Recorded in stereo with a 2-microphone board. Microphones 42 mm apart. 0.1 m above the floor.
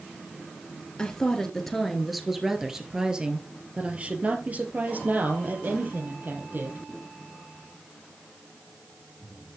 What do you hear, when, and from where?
1.0 s a woman speaking: 20° left (ahead or behind), 1.9 m; by 6.8 s 55° right (ahead or behind), 3 m